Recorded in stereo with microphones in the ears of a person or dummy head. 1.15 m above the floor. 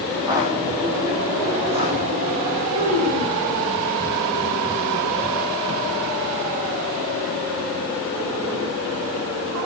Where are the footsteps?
15° right (ahead or behind), 2.0 m; by 2.6 s 30° right (ahead or behind), 3.5 m.